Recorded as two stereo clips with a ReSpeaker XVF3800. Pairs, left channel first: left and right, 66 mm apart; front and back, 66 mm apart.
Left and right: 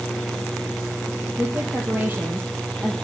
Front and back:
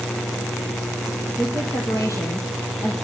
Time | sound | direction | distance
1.4 | a woman speaking | 30° right | 4 m